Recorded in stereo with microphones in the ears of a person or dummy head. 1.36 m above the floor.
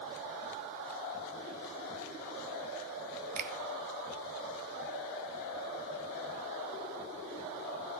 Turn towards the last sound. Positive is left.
turn(degrees=-45)  # may be behind; listen again after turning